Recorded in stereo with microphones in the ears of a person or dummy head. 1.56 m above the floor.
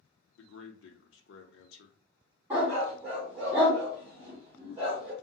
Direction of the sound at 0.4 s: 80° left.